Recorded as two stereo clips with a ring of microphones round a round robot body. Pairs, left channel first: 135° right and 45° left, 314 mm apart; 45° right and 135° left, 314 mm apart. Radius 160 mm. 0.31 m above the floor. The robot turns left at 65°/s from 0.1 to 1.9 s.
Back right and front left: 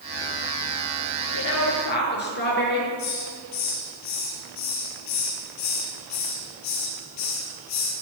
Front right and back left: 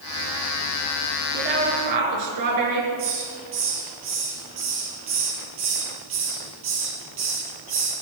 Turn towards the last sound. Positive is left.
turn(degrees=-175)